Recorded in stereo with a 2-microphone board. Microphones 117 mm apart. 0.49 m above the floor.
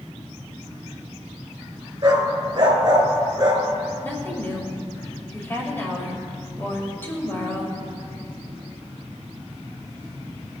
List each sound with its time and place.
2.0 s a dog barking: 40° right (ahead or behind), 2 m
4.0 s a woman speaking: 20° left (ahead or behind), 2.5 m